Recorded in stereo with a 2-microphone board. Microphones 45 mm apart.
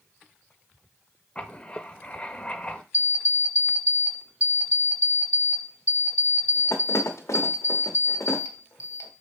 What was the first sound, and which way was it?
Writing, 20° left (ahead or behind).